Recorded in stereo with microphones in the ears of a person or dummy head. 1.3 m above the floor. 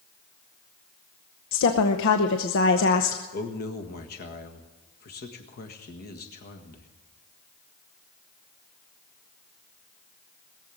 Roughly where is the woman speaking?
Left.